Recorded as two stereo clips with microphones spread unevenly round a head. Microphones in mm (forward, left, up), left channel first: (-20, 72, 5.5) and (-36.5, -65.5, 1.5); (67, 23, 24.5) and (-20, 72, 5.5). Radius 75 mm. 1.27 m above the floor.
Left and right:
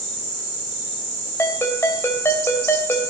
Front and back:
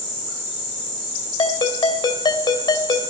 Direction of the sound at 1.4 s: 10° left.